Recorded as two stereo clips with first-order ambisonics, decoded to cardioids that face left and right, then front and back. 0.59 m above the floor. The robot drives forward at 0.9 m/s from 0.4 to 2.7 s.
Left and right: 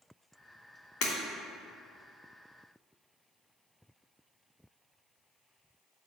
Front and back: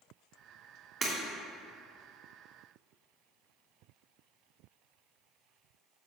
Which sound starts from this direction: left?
Breaking glass, at 1.0 s.